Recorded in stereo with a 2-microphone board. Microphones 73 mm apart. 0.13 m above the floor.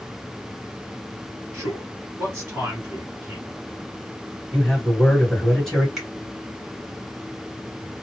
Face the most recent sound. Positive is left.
turn(degrees=-5)  # may be behind; listen again after turning